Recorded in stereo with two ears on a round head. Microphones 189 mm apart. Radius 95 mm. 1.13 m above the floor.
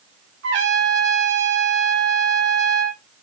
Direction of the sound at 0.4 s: 55° right (ahead or behind).